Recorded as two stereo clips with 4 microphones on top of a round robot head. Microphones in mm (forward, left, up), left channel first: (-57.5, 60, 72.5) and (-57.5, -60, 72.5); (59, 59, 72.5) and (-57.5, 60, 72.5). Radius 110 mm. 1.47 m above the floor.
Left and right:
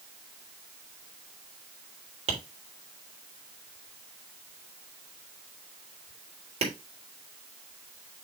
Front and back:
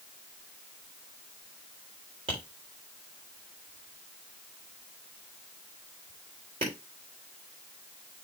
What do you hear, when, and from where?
2.3 s tapping: 125° right, 3.5 m